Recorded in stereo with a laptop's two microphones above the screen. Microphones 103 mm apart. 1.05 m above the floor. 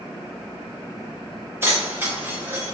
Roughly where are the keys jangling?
Right.